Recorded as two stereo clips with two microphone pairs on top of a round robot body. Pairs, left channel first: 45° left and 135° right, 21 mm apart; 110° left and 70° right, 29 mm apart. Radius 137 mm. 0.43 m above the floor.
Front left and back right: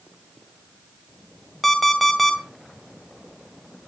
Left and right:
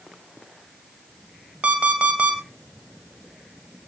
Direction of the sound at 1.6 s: 35° right.